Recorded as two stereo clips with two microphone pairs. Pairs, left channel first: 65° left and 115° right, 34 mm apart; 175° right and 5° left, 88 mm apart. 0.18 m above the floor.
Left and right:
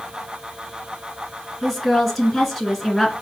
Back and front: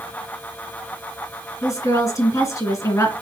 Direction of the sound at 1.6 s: 155° left.